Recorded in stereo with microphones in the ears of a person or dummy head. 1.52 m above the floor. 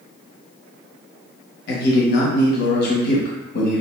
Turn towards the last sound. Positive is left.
turn(degrees=60)  # may be behind; listen again after turning